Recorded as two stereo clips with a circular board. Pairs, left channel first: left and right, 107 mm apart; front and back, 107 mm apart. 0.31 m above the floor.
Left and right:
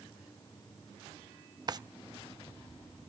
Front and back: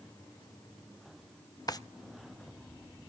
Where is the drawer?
45° right, 0.5 m.